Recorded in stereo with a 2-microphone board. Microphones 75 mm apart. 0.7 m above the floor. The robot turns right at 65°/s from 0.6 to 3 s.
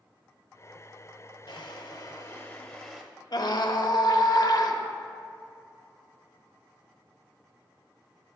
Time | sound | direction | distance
1.5 | a drawer | 90° left | 1.3 m
3.3 | a scream | 60° left (ahead or behind) | 1.1 m